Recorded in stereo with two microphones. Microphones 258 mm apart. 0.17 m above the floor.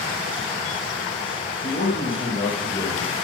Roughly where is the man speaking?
Left.